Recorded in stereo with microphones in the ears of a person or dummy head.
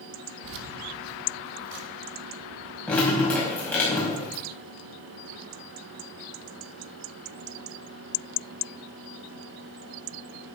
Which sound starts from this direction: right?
Keys jangling, at 0.4 s.